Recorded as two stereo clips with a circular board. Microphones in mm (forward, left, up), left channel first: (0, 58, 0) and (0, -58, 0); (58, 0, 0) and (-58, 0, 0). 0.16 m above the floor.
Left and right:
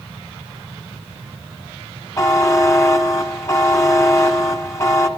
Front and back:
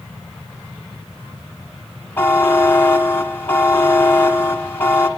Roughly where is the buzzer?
Ahead left.